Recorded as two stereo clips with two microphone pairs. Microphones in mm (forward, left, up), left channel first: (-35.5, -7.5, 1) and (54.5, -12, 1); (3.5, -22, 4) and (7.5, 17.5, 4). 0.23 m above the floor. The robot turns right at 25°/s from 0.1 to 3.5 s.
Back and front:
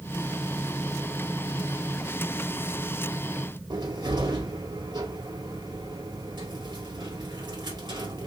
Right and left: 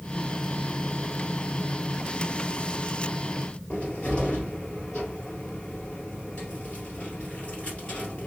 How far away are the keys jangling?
I don't hear keys jangling.